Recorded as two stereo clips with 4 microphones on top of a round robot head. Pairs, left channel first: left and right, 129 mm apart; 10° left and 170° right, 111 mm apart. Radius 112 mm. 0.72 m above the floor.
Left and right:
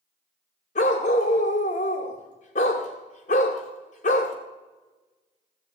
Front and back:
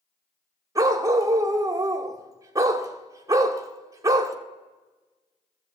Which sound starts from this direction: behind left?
A dog barking, at 0.8 s.